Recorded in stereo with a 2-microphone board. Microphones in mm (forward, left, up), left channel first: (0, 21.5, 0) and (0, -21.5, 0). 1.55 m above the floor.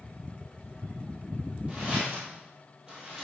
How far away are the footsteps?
About 1.8 m.